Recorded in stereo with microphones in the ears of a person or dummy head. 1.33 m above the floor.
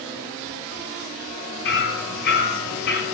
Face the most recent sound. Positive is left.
turn(degrees=55)  # may be behind; listen again after turning